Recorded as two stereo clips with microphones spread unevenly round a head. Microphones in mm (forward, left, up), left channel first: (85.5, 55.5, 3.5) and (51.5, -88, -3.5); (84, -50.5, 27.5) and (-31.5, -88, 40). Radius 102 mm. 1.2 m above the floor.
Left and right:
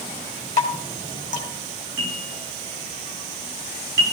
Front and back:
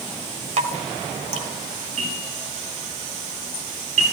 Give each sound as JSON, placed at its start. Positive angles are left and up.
{"t": 0.6, "sound": "dripping", "azimuth_deg": -150, "distance_m": 1.9}
{"t": 2.0, "sound": "a bell", "azimuth_deg": -140, "distance_m": 8.0}